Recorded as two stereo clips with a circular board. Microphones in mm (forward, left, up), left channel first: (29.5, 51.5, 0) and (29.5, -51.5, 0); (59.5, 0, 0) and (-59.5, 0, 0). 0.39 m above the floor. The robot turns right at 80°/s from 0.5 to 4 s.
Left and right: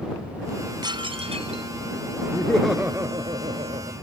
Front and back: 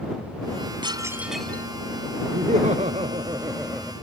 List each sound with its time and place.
0.8 s dishes clattering: 135° right; by 1.7 s 65° right
2.3 s laughter: 155° left; by 3.9 s 75° right